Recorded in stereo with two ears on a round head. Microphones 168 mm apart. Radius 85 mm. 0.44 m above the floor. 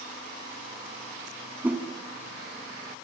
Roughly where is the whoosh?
Centre.